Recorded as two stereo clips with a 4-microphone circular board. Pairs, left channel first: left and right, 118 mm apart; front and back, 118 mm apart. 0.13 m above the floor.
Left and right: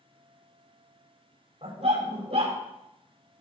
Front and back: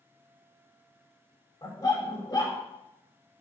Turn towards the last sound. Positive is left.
turn(degrees=-60)